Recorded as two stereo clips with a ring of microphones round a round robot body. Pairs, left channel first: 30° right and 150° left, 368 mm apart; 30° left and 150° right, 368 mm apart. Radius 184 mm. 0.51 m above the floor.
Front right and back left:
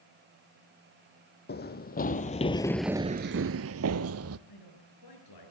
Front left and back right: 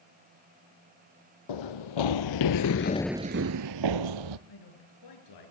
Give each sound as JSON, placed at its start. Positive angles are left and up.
{"t": 1.5, "sound": "running footsteps", "azimuth_deg": 35, "distance_m": 1.4}
{"t": 4.5, "sound": "a man speaking", "azimuth_deg": 0, "distance_m": 7.0}